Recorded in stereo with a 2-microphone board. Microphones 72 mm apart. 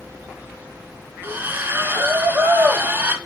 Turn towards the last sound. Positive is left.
turn(degrees=-30)  # may be behind; listen again after turning